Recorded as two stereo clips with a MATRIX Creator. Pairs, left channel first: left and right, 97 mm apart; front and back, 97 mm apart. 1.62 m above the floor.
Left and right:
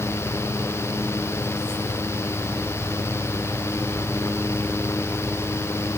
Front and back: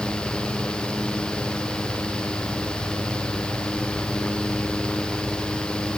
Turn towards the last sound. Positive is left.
No sound to turn to.